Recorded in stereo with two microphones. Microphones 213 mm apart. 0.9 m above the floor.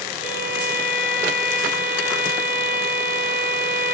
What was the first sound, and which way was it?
A violin, 70° left (ahead or behind).